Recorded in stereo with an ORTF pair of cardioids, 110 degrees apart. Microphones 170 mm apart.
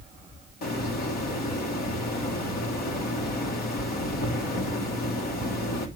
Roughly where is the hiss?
Ahead left.